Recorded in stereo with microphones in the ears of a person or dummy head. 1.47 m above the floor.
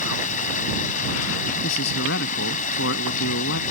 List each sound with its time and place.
0.0 s running water: 35° left (ahead or behind)
1.6 s a man speaking: 55° left (ahead or behind)